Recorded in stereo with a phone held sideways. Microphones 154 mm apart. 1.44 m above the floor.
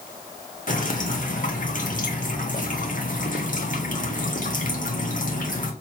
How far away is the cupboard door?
I don't hear a cupboard door.